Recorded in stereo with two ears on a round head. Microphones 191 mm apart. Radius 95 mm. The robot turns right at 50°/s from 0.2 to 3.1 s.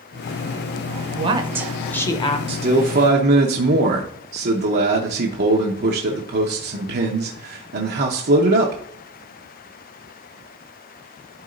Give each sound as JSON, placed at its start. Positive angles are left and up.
{"t": 1.2, "sound": "a woman speaking", "azimuth_deg": -30, "distance_m": 0.8}
{"t": 2.5, "sound": "a man speaking", "azimuth_deg": -150, "distance_m": 0.9}